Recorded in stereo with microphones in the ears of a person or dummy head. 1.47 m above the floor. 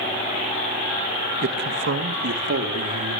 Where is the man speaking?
60° right (ahead or behind), 1.9 m; by 3.2 s 75° right (ahead or behind), 4 m.